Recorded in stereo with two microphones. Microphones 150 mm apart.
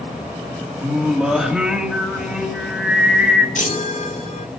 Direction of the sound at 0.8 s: 5° right (ahead or behind).